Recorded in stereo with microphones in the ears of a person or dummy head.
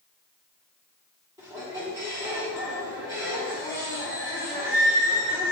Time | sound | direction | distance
1.4 | a squeak | 15° right (ahead or behind) | 1.2 m